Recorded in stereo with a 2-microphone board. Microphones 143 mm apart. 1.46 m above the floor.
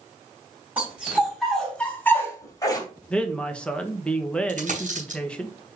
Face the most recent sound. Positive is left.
turn(degrees=-65)  # may be behind; listen again after turning